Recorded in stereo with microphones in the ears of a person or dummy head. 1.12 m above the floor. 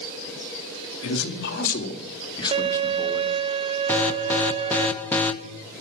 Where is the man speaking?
70° left (ahead or behind), 2 m; by 3.4 s centre (ahead or behind), 2.5 m.